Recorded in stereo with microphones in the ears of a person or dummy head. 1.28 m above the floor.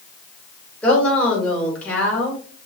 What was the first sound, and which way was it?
A woman speaking, 5° left (ahead or behind).